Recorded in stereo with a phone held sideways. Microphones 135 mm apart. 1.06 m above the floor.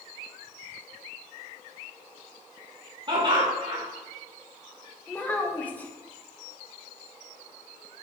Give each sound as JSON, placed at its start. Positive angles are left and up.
{"t": 3.1, "sound": "laughter", "side_deg": -35, "distance_m": 1.3}
{"t": 5.1, "sound": "a child speaking", "side_deg": 10, "distance_m": 0.7}